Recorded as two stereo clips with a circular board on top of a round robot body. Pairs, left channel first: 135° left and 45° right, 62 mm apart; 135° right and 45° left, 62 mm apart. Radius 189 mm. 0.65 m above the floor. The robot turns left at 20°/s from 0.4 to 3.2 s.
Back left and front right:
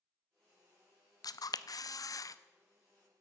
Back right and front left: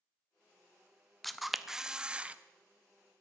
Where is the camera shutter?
135° left, 0.8 m; by 2.4 s 115° left, 0.8 m.